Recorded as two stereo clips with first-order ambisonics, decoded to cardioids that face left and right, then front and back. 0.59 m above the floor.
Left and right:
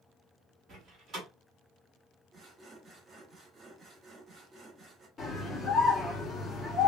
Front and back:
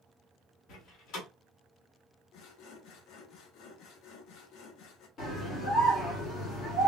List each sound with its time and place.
0.7 s a door slam: 35° right, 1.2 m
2.3 s sawing: 25° right, 0.6 m
5.2 s a scream: 20° left, 1.4 m